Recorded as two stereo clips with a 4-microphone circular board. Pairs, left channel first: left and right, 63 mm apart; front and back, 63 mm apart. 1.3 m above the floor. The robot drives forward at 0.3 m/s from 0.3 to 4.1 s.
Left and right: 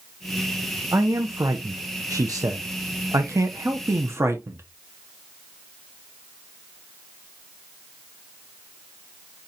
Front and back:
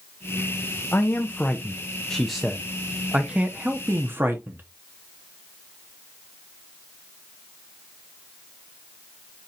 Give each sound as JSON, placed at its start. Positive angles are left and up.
{"t": 0.9, "sound": "a man speaking", "azimuth_deg": -55, "distance_m": 0.8}